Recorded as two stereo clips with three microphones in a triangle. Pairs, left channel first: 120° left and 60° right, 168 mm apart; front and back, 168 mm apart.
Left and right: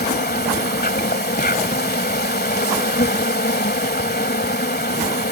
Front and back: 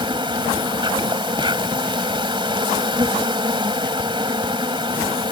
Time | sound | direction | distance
0.0 | an insect | 120° left | ?